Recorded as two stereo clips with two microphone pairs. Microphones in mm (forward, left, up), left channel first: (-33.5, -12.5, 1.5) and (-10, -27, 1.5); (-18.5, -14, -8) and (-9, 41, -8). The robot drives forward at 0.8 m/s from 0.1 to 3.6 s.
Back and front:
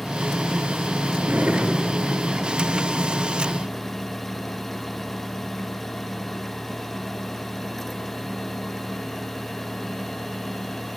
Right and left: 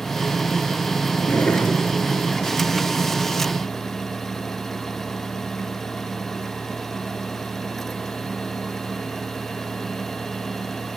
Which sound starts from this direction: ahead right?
A drawer, at 1.2 s.